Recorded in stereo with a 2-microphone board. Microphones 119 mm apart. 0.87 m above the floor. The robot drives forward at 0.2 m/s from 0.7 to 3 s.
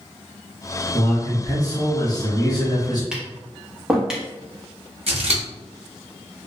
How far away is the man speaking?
About 1.2 m.